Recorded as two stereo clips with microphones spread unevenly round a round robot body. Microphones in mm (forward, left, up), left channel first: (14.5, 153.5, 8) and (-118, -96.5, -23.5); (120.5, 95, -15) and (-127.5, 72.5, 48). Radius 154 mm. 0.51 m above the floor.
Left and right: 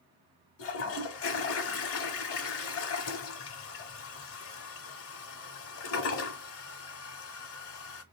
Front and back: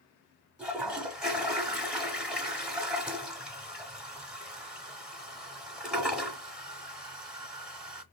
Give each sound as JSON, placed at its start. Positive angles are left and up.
{"t": 0.6, "sound": "a toilet flushing", "azimuth_deg": 100, "distance_m": 0.9}